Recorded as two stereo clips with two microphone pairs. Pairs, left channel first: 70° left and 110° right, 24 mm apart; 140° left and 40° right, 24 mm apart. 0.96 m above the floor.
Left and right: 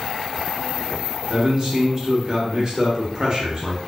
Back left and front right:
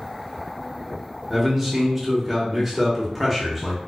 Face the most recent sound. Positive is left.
turn(degrees=-120)